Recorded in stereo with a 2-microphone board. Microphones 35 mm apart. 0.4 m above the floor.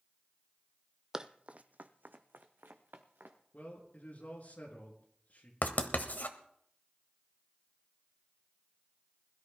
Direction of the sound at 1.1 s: 15° right (ahead or behind).